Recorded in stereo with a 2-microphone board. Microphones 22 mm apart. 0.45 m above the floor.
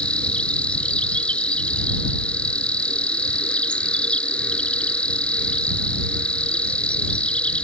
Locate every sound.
0.0 s an insect: 80° left